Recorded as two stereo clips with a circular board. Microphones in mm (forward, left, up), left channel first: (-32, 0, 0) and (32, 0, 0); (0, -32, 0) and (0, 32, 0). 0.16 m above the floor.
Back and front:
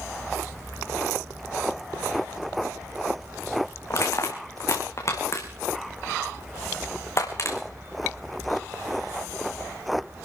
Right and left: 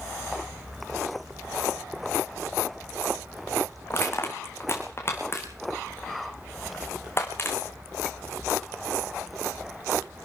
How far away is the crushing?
About 3 m.